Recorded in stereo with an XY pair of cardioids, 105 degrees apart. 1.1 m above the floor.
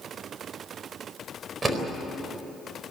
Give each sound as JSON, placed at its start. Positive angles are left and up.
{"t": 1.6, "sound": "a door slam", "azimuth_deg": -30, "distance_m": 4.0}